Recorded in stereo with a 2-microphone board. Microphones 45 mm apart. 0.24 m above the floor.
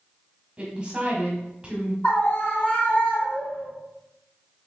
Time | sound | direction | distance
0.6 | a woman speaking | 25° right (ahead or behind) | 1.2 m
2.0 | a scream | 35° left (ahead or behind) | 1.6 m